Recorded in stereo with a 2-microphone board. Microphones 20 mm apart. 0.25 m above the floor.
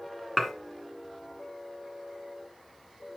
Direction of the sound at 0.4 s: 5° left (ahead or behind).